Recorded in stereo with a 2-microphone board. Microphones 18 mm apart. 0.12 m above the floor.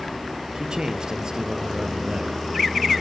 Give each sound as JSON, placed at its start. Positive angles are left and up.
{"t": 0.6, "sound": "a man speaking", "side_deg": -55, "distance_m": 2.5}